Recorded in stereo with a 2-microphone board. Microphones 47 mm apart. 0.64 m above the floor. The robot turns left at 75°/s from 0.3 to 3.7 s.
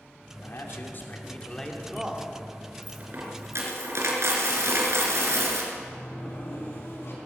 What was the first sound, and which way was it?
A man speaking, 105° left.